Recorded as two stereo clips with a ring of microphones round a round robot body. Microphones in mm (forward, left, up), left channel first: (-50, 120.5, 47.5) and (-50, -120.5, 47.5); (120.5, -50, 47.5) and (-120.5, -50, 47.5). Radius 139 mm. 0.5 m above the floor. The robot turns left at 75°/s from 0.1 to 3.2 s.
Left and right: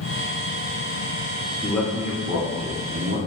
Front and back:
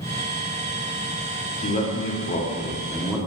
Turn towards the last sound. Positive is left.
turn(degrees=-100)